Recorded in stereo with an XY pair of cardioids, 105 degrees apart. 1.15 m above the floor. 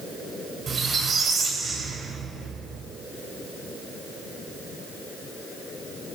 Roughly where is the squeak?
Ahead right.